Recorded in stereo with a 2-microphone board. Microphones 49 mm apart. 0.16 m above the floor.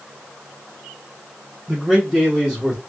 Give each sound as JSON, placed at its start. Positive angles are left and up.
{"t": 1.7, "sound": "a man speaking", "side_deg": -5, "distance_m": 1.6}